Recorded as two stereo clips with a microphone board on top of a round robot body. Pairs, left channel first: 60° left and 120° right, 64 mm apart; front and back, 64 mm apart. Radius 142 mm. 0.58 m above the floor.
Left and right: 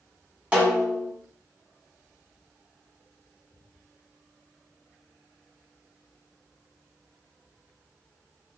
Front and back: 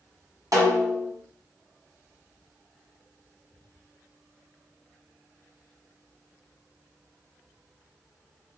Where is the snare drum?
175° left, 1.4 m.